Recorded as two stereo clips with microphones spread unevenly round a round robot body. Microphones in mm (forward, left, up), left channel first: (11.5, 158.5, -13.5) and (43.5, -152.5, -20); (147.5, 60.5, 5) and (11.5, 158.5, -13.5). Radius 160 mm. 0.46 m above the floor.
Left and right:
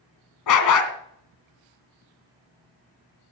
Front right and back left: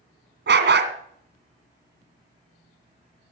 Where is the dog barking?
135° left, 2.0 m.